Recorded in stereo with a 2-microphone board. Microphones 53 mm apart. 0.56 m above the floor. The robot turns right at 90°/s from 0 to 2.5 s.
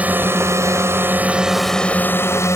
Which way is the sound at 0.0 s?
25° right (ahead or behind).